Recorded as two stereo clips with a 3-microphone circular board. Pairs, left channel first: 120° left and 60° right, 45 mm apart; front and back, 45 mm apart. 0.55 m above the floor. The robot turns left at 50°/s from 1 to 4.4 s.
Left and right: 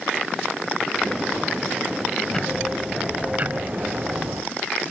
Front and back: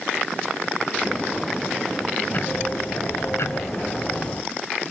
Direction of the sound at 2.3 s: 50° left.